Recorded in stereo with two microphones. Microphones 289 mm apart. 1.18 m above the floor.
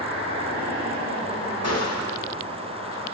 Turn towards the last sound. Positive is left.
turn(degrees=60)  # may be behind; listen again after turning